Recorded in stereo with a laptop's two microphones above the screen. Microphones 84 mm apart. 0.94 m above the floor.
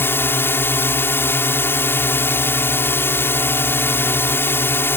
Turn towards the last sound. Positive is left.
turn(degrees=25)  # may be behind; listen again after turning